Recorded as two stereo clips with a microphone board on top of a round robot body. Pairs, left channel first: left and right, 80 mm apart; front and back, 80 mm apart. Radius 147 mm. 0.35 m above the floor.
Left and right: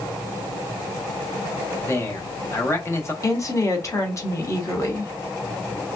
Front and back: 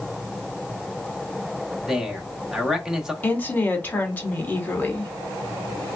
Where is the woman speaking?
60° left, 1.6 m.